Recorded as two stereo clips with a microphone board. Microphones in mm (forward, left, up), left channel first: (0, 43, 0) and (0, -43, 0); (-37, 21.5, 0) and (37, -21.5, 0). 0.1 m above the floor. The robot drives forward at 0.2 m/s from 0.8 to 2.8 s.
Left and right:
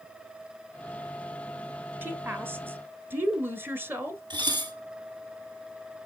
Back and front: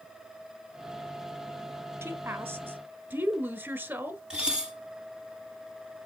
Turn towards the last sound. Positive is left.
turn(degrees=-105)